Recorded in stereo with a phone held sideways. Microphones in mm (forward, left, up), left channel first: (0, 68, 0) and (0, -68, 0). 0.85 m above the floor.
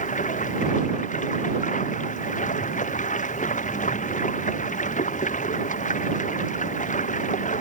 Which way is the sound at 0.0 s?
70° left (ahead or behind).